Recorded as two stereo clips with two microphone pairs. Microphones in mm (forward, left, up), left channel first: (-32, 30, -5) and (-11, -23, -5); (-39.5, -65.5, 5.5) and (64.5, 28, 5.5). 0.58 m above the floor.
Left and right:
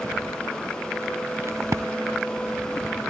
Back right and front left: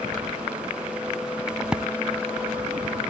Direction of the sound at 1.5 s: 45° right.